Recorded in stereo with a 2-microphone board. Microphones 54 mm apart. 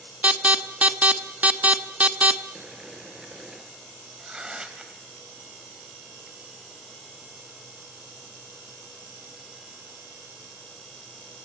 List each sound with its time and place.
0.2 s an alarm: 25° right (ahead or behind), 0.8 m
2.5 s boiling: 10° right (ahead or behind), 2 m
4.2 s tearing paper: 15° right (ahead or behind), 1.7 m